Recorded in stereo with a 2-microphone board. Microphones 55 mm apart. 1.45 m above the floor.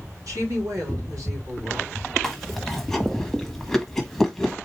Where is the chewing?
5° left (ahead or behind), 1.3 m.